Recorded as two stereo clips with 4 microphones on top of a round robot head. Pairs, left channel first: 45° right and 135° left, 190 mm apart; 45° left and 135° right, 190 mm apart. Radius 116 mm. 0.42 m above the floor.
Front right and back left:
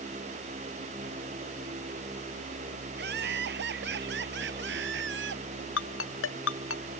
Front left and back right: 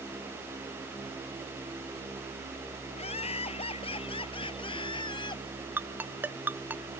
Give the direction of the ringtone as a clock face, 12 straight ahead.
2 o'clock.